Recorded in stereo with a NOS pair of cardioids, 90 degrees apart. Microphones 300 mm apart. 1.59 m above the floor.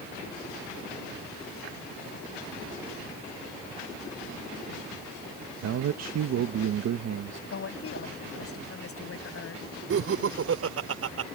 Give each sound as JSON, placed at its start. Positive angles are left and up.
{"t": 5.6, "sound": "a man speaking", "azimuth_deg": -60}
{"t": 7.5, "sound": "a woman speaking", "azimuth_deg": 45}
{"t": 9.9, "sound": "laughter", "azimuth_deg": -50}